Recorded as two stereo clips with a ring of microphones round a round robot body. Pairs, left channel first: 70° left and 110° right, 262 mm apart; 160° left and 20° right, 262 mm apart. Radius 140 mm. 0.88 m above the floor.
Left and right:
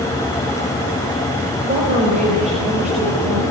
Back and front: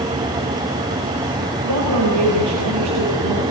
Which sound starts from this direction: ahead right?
A woman speaking, at 1.6 s.